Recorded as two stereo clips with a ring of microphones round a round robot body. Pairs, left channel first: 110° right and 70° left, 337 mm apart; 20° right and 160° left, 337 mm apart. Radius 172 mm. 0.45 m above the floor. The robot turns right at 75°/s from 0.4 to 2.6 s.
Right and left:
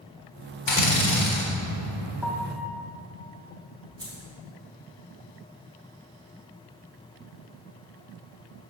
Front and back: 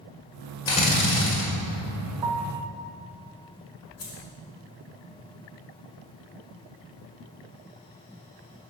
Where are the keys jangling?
10° right, 1.7 m.